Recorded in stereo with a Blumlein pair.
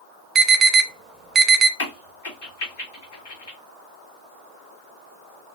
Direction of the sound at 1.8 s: 60° left.